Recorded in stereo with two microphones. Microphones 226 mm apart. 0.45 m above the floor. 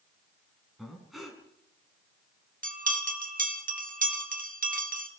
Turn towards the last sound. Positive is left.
turn(degrees=-40)  # may be behind; listen again after turning